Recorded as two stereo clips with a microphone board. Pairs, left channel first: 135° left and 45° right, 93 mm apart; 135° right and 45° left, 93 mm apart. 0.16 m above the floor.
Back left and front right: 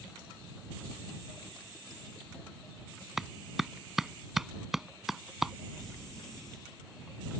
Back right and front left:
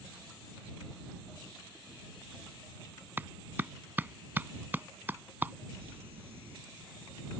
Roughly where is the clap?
Ahead left.